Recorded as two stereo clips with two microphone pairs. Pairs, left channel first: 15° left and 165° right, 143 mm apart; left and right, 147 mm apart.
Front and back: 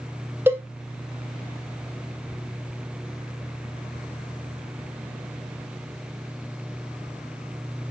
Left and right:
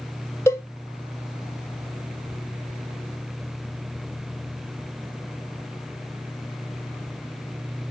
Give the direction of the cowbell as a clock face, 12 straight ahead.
7 o'clock.